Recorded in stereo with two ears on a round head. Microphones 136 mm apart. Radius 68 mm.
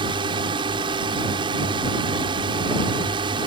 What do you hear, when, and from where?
0.0 s a drone: 30° right (ahead or behind)